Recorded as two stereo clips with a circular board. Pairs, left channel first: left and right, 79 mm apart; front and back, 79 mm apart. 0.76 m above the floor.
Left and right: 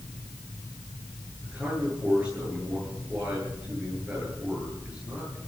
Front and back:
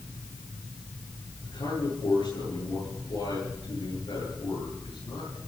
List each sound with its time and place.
1.4 s a man speaking: 15° right, 10 m